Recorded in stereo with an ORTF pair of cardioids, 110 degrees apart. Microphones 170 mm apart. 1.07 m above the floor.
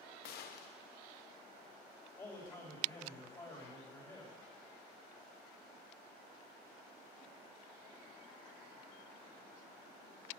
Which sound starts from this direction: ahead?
A man speaking, at 2.2 s.